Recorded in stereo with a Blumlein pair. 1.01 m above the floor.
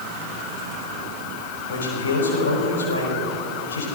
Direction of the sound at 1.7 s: 70° left.